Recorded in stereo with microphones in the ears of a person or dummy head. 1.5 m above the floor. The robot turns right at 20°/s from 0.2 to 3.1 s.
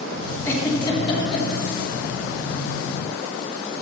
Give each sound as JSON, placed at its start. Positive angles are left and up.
{"t": 0.5, "sound": "a giggle", "side_deg": 15, "distance_m": 1.4}